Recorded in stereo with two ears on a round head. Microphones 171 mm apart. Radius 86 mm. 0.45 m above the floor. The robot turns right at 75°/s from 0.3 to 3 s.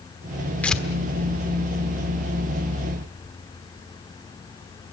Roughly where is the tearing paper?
Centre.